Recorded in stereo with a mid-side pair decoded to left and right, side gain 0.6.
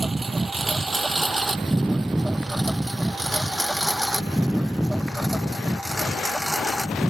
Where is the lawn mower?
20° right; by 7.1 s straight ahead.